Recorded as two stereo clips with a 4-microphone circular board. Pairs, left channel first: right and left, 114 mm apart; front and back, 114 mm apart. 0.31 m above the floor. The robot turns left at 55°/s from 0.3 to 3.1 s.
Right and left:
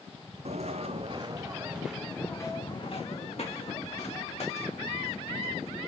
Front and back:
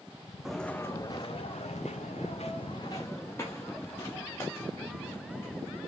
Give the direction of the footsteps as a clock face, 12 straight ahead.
9 o'clock.